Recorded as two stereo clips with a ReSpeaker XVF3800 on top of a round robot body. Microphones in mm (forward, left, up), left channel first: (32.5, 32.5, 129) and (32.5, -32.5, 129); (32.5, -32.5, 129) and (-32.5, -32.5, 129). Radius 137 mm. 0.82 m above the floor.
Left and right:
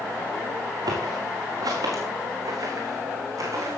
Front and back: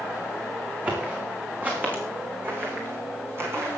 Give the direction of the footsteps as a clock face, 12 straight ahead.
4 o'clock.